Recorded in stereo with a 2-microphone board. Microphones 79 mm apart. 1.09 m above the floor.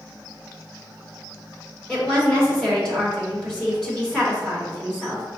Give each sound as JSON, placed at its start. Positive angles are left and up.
{"t": 1.9, "sound": "a woman speaking", "side_deg": 10, "distance_m": 1.8}